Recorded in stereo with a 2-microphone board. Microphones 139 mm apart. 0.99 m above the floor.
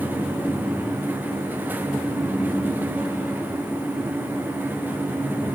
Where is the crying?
I don't hear crying.